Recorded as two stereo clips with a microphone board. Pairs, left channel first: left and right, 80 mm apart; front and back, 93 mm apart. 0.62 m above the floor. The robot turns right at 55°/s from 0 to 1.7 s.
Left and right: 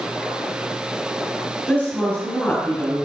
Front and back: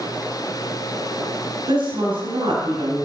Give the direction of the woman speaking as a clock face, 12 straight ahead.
7 o'clock.